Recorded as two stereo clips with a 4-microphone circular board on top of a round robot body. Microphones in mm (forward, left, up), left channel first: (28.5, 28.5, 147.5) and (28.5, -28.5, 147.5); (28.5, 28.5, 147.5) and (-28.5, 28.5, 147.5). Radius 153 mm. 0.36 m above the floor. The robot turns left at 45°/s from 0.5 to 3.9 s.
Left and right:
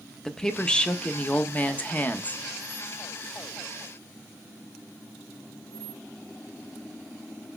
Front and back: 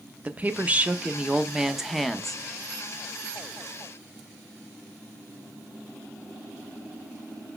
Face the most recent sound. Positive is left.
turn(degrees=5)